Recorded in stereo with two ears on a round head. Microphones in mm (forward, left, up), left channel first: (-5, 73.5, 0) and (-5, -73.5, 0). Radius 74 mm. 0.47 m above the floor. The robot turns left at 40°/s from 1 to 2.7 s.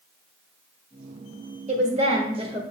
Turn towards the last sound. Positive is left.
turn(degrees=-135)